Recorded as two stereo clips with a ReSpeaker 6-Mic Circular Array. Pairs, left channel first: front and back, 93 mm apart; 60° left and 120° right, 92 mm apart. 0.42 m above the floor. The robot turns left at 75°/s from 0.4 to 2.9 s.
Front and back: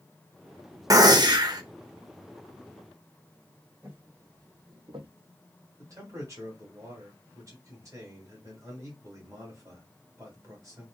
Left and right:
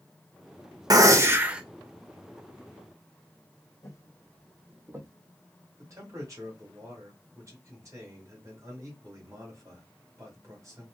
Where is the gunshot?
145° right, 0.6 m; by 1.6 s 160° left, 0.6 m.